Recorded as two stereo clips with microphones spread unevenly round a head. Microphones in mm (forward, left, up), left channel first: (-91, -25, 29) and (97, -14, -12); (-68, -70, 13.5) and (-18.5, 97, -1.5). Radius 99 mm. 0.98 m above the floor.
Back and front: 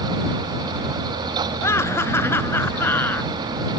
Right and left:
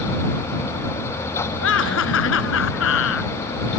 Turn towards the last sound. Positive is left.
turn(degrees=-95)